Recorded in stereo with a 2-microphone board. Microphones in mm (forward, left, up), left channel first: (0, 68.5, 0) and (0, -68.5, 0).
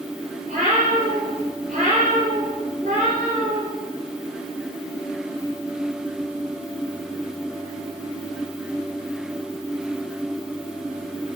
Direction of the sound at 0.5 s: 70° right (ahead or behind).